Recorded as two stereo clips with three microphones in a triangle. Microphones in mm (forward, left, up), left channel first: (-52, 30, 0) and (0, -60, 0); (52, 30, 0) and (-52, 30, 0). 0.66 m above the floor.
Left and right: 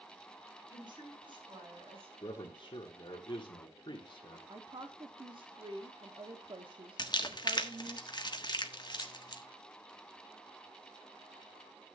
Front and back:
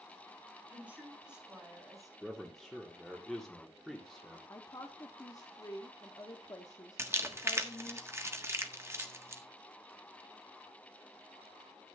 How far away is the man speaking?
About 1.7 m.